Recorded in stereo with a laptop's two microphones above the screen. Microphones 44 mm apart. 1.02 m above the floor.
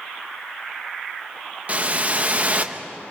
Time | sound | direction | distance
1.7 | a whoosh | 35° right (ahead or behind) | 1.0 m